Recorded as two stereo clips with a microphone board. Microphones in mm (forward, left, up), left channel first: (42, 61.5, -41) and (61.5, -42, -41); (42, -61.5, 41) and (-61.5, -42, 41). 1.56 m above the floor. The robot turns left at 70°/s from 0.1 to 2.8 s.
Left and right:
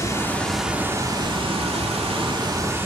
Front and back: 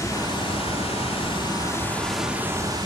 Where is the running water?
45° left, 2.5 m; by 2.9 s 145° right, 2.5 m.